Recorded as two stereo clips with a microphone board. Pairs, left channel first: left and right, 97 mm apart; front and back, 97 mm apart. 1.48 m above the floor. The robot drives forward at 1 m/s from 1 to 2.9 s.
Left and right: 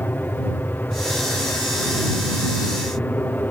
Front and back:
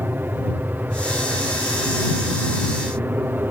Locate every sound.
0.0 s an aircraft: 135° left